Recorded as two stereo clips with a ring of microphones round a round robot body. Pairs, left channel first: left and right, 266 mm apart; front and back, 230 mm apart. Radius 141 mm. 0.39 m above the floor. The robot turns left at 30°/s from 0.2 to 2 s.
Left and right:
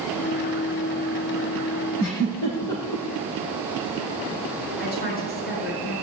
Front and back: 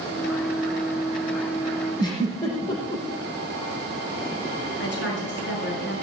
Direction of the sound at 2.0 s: 70° left.